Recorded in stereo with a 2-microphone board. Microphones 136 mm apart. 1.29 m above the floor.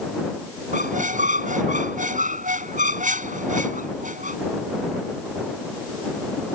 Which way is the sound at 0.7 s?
70° right (ahead or behind).